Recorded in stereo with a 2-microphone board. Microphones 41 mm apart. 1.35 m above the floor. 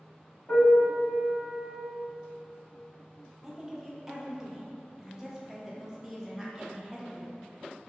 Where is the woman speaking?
10° right (ahead or behind), 0.6 m.